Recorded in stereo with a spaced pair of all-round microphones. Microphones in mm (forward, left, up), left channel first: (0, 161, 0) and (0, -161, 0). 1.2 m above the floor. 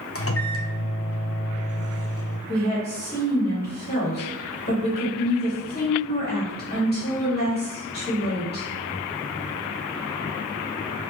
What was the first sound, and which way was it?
A microwave, 45° left (ahead or behind).